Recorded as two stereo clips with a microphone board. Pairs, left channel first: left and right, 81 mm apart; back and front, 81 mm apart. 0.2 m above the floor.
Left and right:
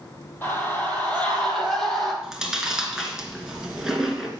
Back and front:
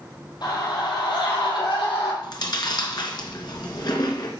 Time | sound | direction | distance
0.4 | a scream | 155° left | 5.5 m
2.2 | chewing | 170° right | 2.5 m